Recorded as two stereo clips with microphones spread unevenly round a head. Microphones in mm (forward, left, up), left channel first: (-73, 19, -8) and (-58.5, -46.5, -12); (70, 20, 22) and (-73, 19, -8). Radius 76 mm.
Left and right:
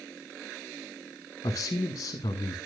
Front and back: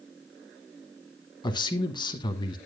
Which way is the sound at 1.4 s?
65° left.